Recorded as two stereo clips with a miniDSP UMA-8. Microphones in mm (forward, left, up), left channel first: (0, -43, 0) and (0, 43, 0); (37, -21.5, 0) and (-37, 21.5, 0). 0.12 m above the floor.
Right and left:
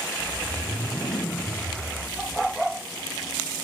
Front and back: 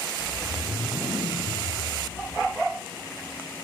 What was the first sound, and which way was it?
A whoosh, 115° right.